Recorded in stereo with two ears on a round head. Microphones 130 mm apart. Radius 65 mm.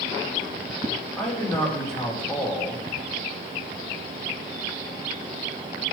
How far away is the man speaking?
About 5.5 m.